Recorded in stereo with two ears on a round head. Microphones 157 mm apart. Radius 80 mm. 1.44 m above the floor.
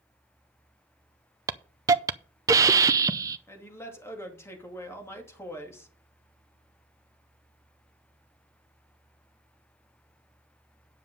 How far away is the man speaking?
About 2.5 m.